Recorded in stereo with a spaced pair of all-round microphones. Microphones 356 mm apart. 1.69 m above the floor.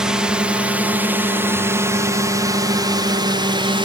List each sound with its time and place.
0.0 s a drone: centre (ahead or behind); by 3.9 s 15° right (ahead or behind)